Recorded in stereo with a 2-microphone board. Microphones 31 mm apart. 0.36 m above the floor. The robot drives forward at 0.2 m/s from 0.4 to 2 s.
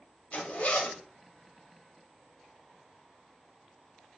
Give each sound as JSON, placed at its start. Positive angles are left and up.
{"t": 0.3, "sound": "a zipper", "side_deg": 55, "distance_m": 0.7}